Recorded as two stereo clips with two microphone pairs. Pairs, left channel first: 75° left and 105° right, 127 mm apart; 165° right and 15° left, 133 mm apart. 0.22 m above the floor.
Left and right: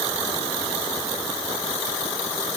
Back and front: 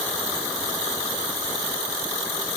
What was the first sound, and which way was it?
Only background noise.